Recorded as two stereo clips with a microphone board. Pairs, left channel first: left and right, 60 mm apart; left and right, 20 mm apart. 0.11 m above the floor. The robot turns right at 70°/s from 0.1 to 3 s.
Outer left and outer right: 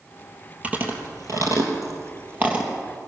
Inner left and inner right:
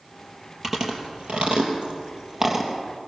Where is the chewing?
20° right (ahead or behind), 3 m; by 2.7 s 10° right (ahead or behind), 3 m.